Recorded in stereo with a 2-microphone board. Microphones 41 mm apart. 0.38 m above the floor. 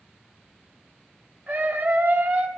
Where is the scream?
30° right (ahead or behind), 2 m.